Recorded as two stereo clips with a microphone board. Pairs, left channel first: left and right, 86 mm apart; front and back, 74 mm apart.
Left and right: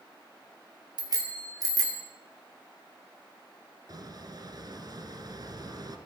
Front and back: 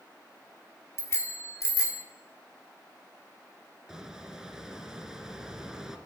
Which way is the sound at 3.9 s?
100° right.